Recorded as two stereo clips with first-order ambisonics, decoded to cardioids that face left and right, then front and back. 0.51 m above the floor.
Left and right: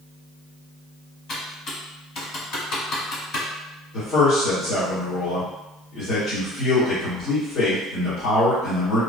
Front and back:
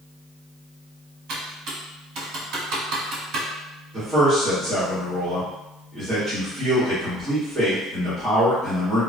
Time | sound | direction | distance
1.3 | typing on a keyboard | 140° left | 1.2 m
3.9 | a man speaking | 120° left | 1.6 m